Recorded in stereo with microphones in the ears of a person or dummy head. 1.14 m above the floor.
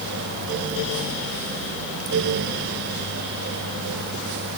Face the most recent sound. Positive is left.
No sound to turn to.